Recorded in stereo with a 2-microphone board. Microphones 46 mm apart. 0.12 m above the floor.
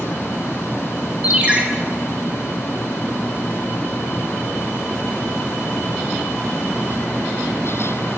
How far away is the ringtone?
About 0.6 m.